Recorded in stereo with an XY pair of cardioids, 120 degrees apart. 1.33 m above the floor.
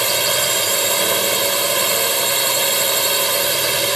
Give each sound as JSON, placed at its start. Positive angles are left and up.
{"t": 0.0, "sound": "a drone", "azimuth_deg": -15}